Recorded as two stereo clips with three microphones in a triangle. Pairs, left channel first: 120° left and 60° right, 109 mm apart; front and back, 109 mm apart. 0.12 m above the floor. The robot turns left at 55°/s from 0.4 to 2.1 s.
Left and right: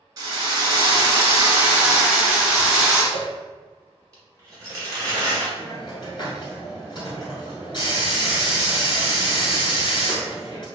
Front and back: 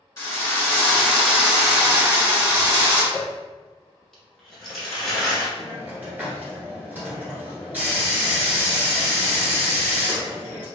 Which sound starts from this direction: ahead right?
A drill, at 0.2 s.